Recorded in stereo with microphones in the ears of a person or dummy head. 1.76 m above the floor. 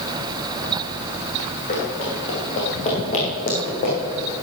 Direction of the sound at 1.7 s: 35° left (ahead or behind).